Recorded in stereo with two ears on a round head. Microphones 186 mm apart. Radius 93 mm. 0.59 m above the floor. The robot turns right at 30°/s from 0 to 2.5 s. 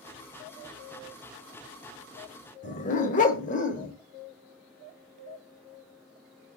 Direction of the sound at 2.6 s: 40° left (ahead or behind).